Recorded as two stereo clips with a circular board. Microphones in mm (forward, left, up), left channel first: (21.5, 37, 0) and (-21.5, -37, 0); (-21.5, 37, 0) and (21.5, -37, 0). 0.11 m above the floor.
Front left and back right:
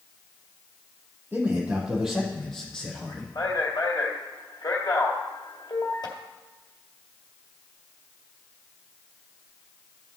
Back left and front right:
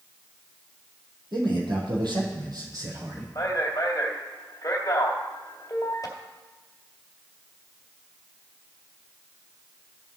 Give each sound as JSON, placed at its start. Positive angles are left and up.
{"t": 1.3, "sound": "a man speaking", "azimuth_deg": -50, "distance_m": 3.0}
{"t": 3.4, "sound": "a man speaking", "azimuth_deg": 80, "distance_m": 2.0}